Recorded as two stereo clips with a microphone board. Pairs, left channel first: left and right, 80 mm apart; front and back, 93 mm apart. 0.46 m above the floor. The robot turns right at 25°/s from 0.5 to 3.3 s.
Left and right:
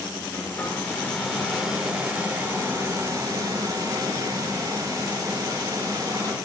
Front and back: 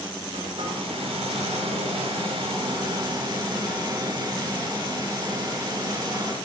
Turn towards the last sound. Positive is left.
turn(degrees=-140)